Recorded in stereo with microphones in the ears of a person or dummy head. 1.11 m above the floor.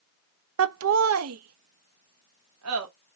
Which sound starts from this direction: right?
Laughter, at 0.6 s.